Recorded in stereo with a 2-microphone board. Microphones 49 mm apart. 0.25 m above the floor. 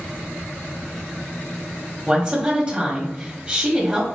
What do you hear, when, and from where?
2.1 s a woman speaking: 20° right (ahead or behind), 1.3 m